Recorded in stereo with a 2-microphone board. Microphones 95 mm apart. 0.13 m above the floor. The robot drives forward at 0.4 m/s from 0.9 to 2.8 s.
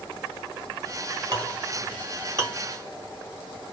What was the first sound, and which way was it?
A clink, 40° right (ahead or behind).